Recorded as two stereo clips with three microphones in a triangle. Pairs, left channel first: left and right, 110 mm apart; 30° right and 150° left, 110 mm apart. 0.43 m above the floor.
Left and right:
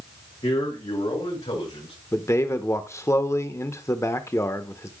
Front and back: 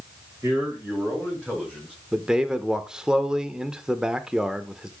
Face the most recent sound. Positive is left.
turn(degrees=75)